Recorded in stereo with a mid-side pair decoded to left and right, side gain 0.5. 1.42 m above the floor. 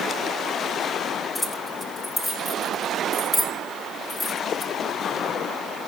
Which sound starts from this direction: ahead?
Keys jangling, at 1.4 s.